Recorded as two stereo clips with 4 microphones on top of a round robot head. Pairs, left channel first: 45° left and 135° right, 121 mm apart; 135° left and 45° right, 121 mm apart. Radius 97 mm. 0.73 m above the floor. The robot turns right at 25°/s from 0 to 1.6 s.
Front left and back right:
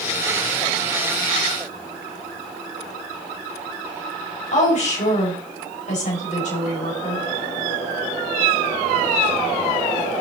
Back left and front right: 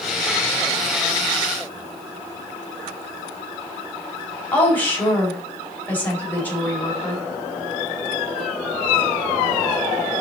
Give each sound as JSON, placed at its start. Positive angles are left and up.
{"t": 4.5, "sound": "a woman speaking", "azimuth_deg": 60, "distance_m": 5.0}